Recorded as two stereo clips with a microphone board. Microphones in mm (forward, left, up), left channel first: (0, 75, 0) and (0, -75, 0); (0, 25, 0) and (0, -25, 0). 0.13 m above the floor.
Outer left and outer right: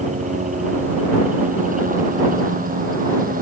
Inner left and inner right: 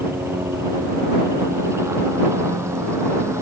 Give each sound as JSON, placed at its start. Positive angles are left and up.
{"t": 0.0, "sound": "a helicopter", "side_deg": -55}